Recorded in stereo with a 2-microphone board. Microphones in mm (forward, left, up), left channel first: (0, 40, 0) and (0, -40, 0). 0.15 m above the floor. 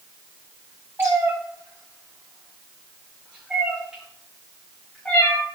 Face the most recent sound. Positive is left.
turn(degrees=15)  # may be behind; listen again after turning